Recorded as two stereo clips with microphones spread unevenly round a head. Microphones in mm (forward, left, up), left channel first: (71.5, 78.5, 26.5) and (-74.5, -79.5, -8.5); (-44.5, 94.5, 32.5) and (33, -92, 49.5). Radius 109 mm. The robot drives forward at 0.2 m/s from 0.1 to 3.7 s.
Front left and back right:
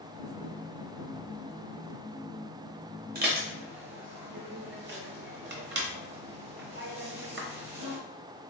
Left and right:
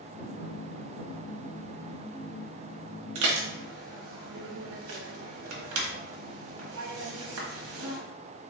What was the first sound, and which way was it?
Dishes clattering, 80° right.